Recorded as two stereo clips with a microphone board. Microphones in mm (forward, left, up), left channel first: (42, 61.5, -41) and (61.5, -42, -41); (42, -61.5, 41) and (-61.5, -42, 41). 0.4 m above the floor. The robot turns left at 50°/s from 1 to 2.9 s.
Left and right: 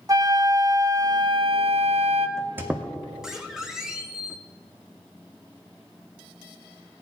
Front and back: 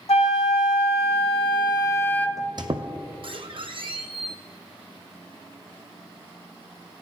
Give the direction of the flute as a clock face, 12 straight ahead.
1 o'clock.